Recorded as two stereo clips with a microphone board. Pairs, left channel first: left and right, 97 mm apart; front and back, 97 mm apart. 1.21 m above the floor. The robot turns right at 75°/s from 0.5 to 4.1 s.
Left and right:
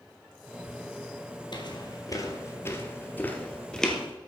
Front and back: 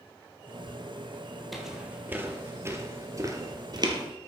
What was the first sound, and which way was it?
Footsteps, 90° left.